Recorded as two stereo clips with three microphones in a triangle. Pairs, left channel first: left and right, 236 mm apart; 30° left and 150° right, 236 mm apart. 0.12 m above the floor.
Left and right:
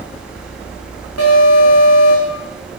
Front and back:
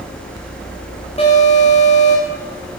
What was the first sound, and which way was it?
An alarm, 95° left.